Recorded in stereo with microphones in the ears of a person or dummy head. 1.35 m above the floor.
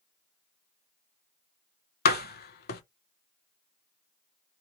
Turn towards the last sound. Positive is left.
turn(degrees=55)  # may be behind; listen again after turning